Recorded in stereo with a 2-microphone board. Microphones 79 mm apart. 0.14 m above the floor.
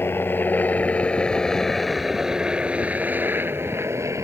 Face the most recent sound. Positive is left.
turn(degrees=-40)  # may be behind; listen again after turning